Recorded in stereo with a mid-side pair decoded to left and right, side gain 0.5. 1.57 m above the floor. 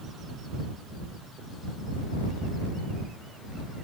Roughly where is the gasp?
I don't hear a gasp.